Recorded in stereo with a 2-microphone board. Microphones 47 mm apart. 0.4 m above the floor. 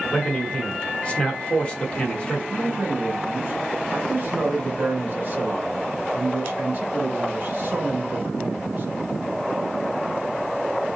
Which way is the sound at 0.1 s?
25° left (ahead or behind).